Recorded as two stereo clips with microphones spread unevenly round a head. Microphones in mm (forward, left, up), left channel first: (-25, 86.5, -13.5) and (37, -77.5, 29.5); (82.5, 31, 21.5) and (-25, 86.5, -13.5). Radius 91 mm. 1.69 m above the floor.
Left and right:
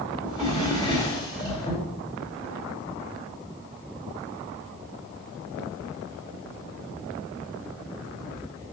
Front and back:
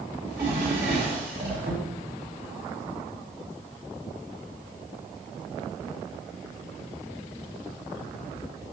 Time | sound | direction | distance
0.2 | a drawer | 175° right | 3 m